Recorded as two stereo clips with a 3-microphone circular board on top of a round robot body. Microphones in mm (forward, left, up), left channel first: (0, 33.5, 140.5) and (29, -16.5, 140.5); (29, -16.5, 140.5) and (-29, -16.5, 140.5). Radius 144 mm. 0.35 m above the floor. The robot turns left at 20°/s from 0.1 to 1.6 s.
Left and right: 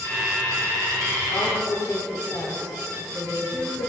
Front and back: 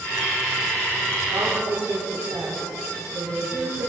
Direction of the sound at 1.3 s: 150° left.